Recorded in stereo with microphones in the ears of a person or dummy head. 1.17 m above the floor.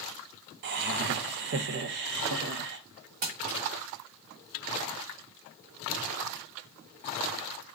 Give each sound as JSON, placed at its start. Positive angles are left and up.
{"t": 0.6, "sound": "laughter", "side_deg": -55, "distance_m": 0.6}
{"t": 3.2, "sound": "crumpling", "side_deg": -45, "distance_m": 1.3}